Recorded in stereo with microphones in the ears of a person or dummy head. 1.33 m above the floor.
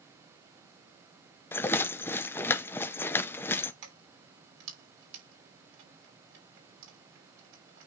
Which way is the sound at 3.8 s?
70° right (ahead or behind).